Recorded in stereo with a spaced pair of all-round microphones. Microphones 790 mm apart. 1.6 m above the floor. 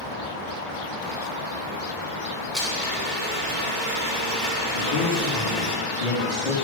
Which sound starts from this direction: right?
A blender, at 2.5 s.